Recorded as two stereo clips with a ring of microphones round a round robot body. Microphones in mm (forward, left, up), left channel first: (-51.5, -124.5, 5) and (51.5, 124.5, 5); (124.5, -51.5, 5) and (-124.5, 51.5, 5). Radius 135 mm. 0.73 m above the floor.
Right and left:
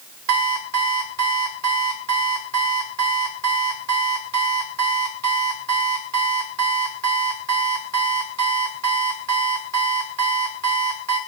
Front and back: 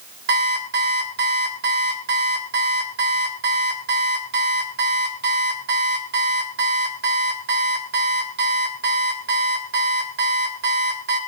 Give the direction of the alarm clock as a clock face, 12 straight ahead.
9 o'clock.